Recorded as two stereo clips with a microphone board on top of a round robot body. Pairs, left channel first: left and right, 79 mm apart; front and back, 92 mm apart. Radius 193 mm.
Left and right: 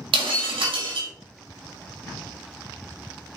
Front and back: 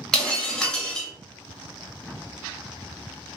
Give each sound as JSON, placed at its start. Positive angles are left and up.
{"t": 0.1, "sound": "breaking glass", "azimuth_deg": -85, "distance_m": 0.7}